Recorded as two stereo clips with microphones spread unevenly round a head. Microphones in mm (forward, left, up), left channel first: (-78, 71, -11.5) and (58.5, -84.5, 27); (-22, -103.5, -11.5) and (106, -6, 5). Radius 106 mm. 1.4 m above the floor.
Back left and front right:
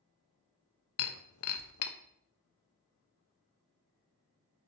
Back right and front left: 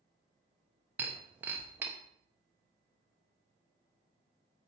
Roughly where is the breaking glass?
Behind left.